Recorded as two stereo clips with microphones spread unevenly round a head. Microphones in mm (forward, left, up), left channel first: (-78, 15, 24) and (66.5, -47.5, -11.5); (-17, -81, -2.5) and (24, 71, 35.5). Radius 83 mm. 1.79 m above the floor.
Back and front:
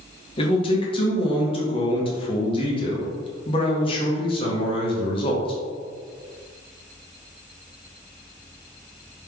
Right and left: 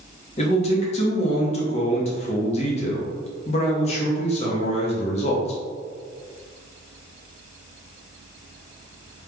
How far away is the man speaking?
About 1.1 m.